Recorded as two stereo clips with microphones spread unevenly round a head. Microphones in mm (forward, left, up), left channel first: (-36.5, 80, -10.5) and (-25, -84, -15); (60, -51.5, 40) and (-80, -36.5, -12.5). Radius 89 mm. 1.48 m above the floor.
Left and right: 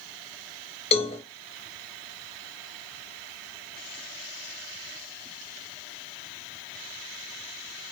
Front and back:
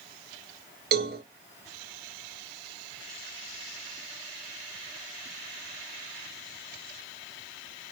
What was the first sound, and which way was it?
A cowbell, 150° left.